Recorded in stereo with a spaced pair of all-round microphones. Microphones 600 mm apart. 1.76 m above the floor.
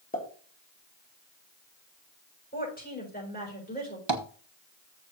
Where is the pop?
15° left (ahead or behind), 3 m.